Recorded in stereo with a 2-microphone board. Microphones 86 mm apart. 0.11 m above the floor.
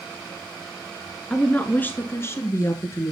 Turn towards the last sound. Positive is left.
turn(degrees=35)  # may be behind; listen again after turning